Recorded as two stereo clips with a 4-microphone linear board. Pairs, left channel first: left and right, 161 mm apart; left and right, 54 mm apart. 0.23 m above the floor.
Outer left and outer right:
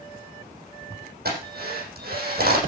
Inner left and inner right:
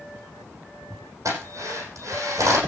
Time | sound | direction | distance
1.2 | a drill | 75° right (ahead or behind) | 7.5 m